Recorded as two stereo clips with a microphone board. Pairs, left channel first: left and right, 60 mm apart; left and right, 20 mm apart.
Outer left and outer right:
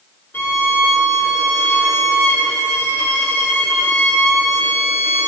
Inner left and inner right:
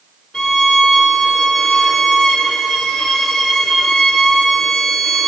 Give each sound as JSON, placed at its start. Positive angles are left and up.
{"t": 0.3, "sound": "a violin", "side_deg": 40, "distance_m": 0.9}